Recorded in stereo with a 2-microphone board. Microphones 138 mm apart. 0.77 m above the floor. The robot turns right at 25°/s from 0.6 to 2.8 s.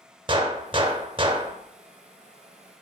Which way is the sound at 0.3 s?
40° right (ahead or behind).